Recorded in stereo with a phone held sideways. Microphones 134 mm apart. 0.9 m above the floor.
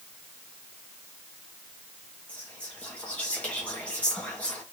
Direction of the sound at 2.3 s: 10° left (ahead or behind).